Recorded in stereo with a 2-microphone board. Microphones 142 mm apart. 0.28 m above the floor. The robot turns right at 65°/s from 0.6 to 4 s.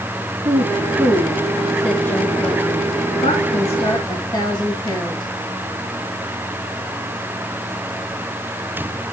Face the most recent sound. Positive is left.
turn(degrees=35)  # may be behind; listen again after turning